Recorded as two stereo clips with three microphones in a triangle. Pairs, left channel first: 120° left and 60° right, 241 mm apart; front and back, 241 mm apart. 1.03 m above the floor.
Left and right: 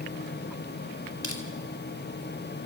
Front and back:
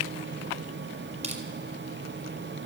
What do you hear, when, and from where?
1.2 s crushing: 120° left, 4 m